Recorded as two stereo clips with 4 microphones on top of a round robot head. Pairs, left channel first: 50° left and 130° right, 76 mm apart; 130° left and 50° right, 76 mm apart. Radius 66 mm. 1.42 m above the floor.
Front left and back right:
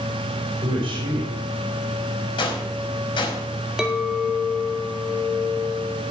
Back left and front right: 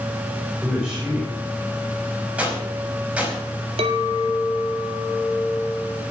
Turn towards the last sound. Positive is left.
turn(degrees=-50)